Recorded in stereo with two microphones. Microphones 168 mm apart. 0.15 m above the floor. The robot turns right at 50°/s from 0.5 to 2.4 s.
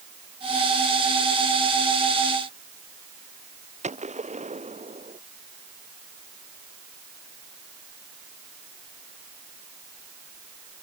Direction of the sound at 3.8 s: 40° right (ahead or behind).